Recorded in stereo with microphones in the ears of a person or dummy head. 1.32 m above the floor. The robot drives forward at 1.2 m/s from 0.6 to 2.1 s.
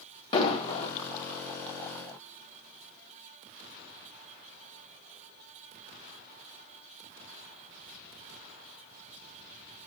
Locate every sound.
0.3 s an explosion: 35° left (ahead or behind), 1.6 m; by 0.9 s 40° left (ahead or behind), 1.4 m